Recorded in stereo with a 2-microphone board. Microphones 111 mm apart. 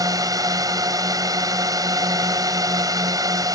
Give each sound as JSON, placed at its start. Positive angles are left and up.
{"t": 0.0, "sound": "a drone", "side_deg": -35}